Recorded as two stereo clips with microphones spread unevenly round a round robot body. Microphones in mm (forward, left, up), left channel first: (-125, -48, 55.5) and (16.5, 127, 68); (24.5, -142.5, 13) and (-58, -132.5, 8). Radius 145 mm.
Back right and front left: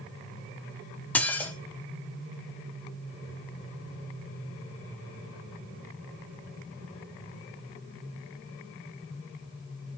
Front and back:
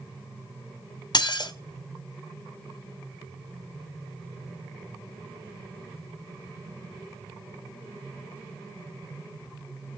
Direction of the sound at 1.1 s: 45° right.